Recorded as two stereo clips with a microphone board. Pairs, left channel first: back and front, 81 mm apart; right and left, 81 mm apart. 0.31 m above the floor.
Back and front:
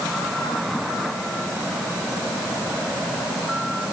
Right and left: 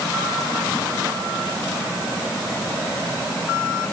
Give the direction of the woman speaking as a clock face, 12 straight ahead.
No woman speaking in this recording.